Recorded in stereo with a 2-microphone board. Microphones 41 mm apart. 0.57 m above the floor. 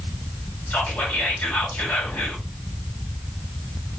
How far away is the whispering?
About 1.8 m.